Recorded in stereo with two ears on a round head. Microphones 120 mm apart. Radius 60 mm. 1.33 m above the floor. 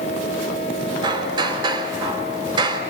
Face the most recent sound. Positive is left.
turn(degrees=-35)  # may be behind; listen again after turning